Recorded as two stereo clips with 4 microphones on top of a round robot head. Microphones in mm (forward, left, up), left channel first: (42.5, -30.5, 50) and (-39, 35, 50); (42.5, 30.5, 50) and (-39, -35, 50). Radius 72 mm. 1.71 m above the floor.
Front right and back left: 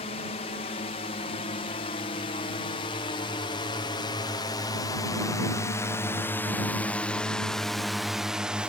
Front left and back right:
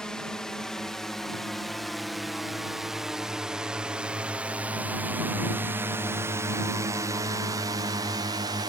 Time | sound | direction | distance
0.0 | a drone | 45° right | ?